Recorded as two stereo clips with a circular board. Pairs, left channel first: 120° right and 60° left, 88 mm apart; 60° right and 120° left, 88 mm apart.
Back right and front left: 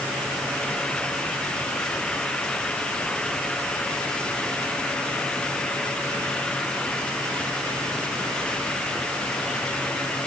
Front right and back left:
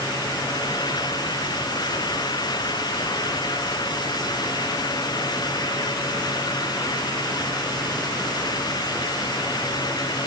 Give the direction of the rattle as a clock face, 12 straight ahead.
No rattle in this recording.